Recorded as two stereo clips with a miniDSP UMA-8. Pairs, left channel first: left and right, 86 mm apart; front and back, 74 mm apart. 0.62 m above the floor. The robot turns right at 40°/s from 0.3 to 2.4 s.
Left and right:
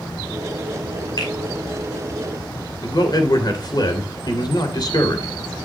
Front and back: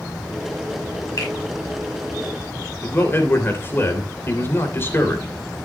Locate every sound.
1.2 s a finger snap: 45° left, 5 m; by 1.3 s 50° left, 5 m
2.8 s a man speaking: 55° left, 2.5 m